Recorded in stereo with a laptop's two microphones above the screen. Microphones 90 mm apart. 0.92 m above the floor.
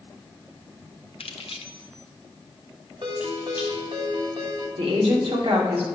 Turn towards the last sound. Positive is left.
turn(degrees=-80)